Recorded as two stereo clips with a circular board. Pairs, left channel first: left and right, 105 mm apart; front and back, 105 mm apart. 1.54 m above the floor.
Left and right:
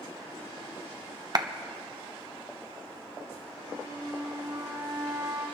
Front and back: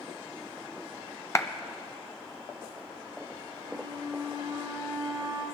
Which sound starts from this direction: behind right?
A flute, at 3.6 s.